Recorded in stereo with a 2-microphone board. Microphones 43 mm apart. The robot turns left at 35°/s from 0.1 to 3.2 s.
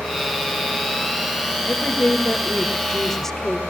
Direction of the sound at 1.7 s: 70° left.